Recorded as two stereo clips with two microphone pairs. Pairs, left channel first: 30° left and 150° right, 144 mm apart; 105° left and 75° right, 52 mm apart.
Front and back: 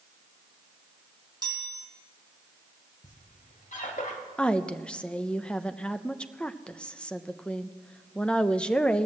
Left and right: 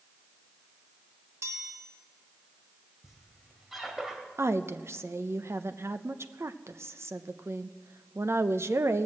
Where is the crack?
No crack in this recording.